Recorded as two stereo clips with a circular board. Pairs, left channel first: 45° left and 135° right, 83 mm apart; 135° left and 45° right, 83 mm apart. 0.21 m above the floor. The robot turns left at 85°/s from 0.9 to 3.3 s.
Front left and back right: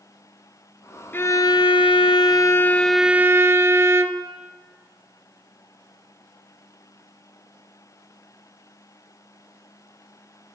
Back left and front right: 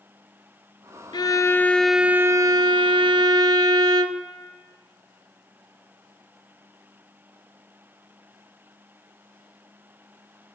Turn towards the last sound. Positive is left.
turn(degrees=-75)